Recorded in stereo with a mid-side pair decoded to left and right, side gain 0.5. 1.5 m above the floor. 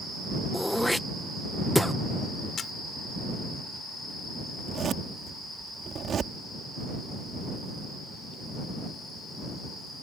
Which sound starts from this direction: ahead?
Throat clearing, at 0.5 s.